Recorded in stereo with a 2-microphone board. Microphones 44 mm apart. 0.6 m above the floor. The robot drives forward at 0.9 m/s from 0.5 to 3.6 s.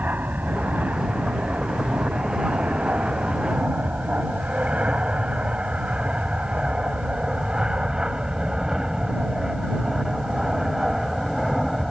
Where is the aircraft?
40° right (ahead or behind); by 11.9 s 5° right (ahead or behind).